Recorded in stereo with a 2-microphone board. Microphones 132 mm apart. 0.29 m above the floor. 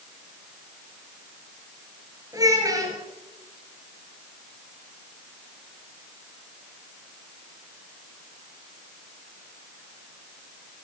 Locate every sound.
2.3 s a child speaking: 25° right (ahead or behind), 3.5 m